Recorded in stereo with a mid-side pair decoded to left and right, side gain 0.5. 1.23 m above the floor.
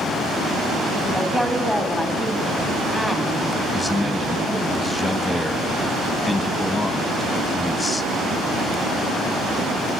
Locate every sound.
1.1 s a woman speaking: 5° left, 3 m
3.7 s a man speaking: 10° left, 2.5 m